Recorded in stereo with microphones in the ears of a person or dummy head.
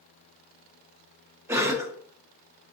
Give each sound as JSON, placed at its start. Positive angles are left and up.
{"t": 1.5, "sound": "a cough", "side_deg": -15, "distance_m": 0.6}